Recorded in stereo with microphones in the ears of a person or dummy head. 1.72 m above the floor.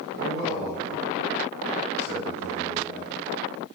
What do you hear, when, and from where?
0.1 s a man speaking: 10° right (ahead or behind), 1.2 m